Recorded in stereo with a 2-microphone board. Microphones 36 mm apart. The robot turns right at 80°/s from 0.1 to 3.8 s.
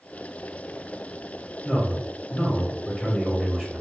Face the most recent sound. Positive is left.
turn(degrees=-165)